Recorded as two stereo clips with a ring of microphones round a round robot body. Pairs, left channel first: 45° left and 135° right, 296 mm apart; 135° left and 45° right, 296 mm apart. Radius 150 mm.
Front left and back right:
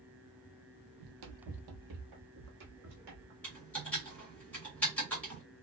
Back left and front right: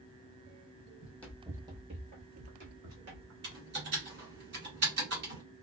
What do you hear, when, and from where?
1.0 s running footsteps: 150° right, 0.7 m; by 3.3 s 85° right, 1.4 m
3.4 s typing on a keyboard: 35° right, 1.5 m